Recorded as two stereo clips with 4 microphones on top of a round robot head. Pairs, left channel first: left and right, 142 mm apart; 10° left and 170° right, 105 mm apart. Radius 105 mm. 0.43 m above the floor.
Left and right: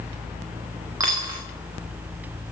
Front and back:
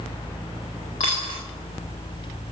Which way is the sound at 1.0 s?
25° right.